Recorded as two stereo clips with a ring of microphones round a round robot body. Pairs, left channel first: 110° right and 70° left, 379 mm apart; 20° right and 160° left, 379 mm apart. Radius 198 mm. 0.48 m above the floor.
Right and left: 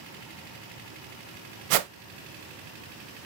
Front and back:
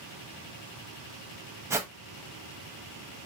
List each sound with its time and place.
1.7 s a whoosh: 75° left, 0.7 m